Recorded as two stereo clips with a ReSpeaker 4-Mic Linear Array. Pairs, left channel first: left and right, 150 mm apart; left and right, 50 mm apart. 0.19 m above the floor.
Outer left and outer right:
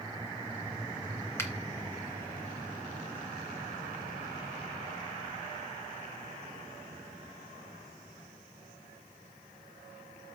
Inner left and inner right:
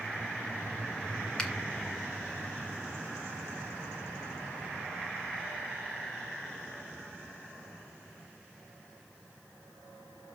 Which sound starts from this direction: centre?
A finger snap, at 1.4 s.